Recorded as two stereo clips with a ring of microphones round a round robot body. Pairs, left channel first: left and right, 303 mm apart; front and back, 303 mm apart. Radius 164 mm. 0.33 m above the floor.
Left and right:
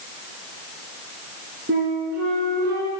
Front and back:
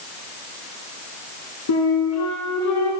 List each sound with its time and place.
1.7 s a flute: 30° right, 2.5 m